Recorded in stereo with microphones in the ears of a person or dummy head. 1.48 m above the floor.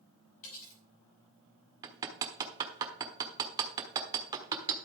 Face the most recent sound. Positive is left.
turn(degrees=-20)  # may be behind; listen again after turning